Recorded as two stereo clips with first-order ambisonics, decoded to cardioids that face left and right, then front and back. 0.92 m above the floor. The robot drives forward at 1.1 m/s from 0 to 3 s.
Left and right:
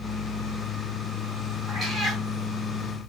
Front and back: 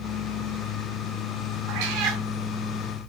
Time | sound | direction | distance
1.7 | a cat meowing | 170° right | 4 m